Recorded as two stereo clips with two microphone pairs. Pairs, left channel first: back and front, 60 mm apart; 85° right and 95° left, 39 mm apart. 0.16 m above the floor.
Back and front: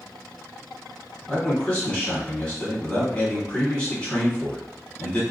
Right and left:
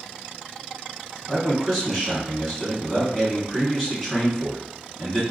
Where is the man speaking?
150° right, 1.3 m.